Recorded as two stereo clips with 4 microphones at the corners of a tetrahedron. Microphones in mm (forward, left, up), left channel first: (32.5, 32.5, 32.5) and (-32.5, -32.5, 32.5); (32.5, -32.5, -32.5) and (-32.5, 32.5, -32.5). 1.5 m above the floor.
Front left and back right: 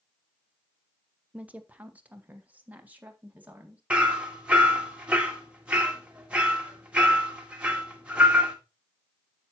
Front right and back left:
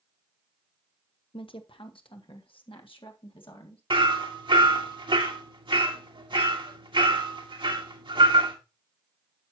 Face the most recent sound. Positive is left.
turn(degrees=150)